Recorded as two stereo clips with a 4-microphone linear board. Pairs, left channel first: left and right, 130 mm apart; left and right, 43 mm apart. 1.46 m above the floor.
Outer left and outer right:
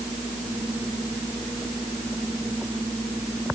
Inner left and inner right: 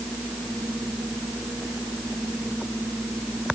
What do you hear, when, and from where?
Only background noise.